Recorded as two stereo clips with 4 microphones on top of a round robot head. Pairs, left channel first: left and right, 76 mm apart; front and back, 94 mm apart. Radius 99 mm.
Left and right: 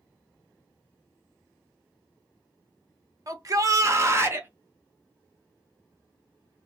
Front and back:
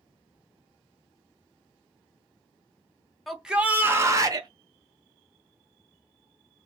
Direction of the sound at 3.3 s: 90° right.